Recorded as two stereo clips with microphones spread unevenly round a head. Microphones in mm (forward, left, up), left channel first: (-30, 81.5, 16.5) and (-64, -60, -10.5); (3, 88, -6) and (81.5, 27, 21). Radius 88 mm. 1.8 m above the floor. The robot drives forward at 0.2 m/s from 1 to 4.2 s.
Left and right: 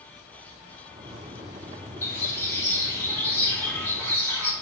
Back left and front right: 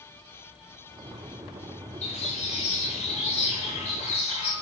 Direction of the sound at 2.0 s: 140° left.